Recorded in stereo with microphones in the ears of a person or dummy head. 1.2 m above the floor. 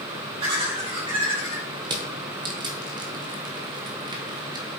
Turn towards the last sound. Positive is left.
turn(degrees=-25)  # may be behind; listen again after turning